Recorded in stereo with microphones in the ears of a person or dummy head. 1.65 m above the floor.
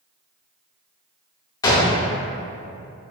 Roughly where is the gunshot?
Left.